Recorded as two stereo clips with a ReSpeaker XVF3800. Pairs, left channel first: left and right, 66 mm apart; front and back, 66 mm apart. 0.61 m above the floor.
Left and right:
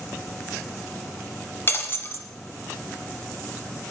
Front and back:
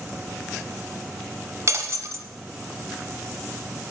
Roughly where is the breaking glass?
Behind left.